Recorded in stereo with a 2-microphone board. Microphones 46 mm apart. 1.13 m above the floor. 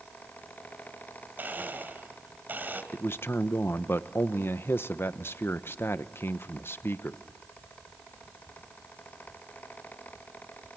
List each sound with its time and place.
1.4 s a blender: 45° right (ahead or behind), 2.5 m
2.9 s a man speaking: 55° left (ahead or behind), 0.9 m